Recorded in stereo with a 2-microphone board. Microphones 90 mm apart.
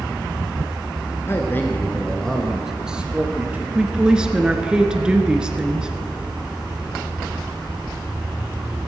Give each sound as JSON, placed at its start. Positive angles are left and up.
{"t": 1.3, "sound": "a man speaking", "side_deg": 30, "distance_m": 1.5}
{"t": 3.8, "sound": "a woman speaking", "side_deg": -10, "distance_m": 1.3}